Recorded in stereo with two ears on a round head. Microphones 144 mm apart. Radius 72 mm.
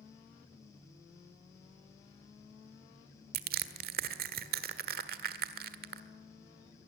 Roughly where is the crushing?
Right.